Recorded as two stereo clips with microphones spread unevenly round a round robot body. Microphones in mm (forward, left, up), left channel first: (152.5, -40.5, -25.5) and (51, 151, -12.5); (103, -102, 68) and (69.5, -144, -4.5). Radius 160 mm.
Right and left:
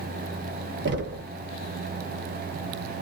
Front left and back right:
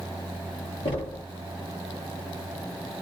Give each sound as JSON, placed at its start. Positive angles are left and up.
{"t": 0.8, "sound": "knocking", "azimuth_deg": 105, "distance_m": 0.7}